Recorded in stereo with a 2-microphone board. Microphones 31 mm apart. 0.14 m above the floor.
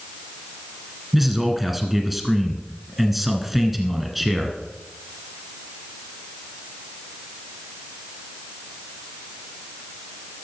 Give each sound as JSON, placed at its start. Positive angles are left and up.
{"t": 1.1, "sound": "a man speaking", "side_deg": -5, "distance_m": 1.5}